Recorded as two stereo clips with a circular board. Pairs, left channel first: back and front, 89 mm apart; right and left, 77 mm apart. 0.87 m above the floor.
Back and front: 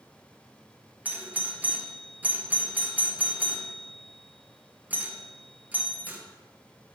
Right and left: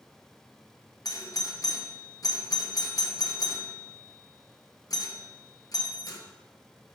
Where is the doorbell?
65° right, 1.1 m.